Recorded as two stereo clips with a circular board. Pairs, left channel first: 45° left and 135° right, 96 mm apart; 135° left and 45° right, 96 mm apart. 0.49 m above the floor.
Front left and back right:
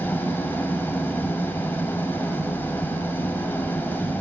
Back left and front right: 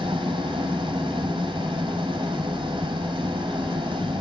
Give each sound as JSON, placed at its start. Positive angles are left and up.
{"t": 0.0, "sound": "an engine running", "azimuth_deg": -20, "distance_m": 2.5}